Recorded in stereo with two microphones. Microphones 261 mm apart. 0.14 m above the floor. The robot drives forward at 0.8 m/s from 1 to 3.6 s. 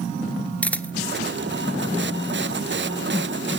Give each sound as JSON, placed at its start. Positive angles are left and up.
{"t": 0.6, "sound": "a camera shutter", "side_deg": 5, "distance_m": 0.7}